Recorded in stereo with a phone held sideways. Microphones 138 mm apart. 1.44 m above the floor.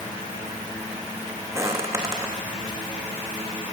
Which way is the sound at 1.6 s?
20° right (ahead or behind).